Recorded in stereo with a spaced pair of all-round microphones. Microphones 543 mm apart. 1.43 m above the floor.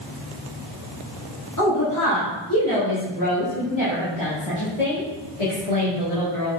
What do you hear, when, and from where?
1.6 s a woman speaking: 30° left (ahead or behind), 3 m; by 6.5 s 85° left, 2.5 m